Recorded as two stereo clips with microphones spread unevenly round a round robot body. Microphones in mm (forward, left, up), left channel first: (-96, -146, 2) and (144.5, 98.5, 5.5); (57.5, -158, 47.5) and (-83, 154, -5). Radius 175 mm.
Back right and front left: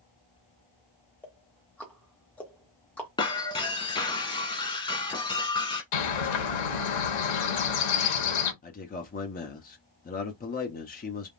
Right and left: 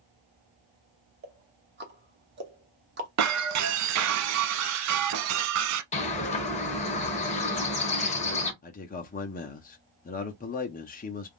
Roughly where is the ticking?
Behind left.